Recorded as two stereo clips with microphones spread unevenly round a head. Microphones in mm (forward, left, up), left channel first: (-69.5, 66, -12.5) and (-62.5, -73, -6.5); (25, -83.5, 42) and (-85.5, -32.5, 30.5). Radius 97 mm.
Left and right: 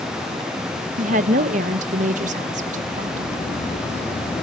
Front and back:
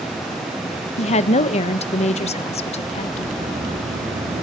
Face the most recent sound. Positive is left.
turn(degrees=140)